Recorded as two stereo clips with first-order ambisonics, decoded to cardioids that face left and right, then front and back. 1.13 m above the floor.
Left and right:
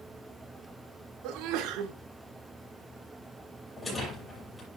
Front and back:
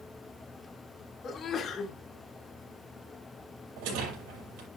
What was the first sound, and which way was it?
A sneeze, 65° right.